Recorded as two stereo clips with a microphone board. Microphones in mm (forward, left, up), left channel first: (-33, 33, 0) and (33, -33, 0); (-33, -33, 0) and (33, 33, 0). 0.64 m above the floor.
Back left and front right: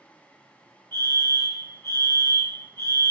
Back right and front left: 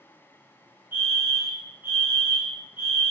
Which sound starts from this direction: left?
A fire alarm, at 0.9 s.